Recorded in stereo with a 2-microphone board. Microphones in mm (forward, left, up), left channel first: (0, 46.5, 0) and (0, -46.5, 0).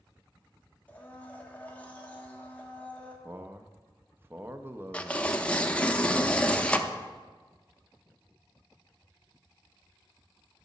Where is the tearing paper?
10° left (ahead or behind), 0.6 m.